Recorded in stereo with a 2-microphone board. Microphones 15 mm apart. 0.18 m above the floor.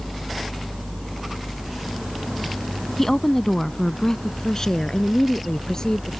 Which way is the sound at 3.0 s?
25° left (ahead or behind).